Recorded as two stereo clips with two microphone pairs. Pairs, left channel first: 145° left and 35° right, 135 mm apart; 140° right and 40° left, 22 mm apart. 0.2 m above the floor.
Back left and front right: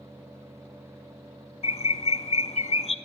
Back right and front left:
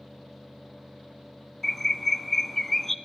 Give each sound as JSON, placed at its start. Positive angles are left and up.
{"t": 1.6, "sound": "a bird", "azimuth_deg": 135, "distance_m": 0.8}